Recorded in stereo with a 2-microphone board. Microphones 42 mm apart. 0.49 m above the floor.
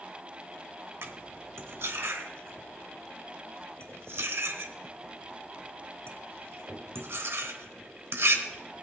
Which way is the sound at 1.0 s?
75° right (ahead or behind).